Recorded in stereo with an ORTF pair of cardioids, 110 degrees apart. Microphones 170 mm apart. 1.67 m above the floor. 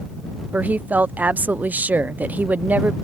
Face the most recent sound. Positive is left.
turn(degrees=-10)